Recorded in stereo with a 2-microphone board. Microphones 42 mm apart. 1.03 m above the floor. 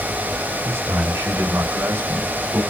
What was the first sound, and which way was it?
A man speaking, 85° right.